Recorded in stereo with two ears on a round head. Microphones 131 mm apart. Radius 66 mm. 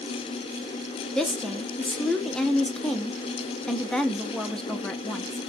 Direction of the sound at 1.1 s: 5° left (ahead or behind).